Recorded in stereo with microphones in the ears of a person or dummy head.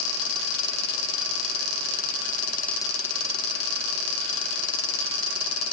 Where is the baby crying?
No baby crying in this recording.